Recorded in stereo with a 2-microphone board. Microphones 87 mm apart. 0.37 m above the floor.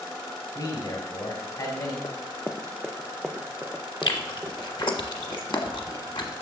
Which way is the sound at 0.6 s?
50° left (ahead or behind).